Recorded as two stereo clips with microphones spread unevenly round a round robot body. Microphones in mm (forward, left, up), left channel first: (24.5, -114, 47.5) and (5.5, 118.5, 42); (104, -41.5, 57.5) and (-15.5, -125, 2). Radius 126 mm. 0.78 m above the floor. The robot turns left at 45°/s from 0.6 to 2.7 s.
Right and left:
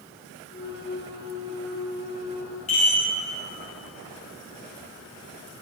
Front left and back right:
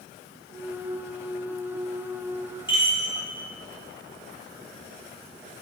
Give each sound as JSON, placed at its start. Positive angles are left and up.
{"t": 2.7, "sound": "a chime", "azimuth_deg": -25, "distance_m": 5.0}